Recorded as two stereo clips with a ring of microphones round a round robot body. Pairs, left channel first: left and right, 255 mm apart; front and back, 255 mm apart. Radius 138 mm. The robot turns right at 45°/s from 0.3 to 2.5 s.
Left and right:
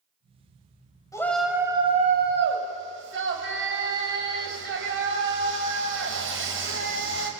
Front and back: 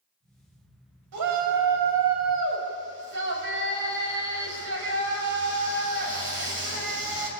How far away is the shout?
About 5.5 m.